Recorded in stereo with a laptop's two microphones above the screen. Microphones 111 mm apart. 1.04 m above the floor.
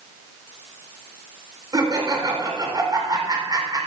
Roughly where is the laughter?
Right.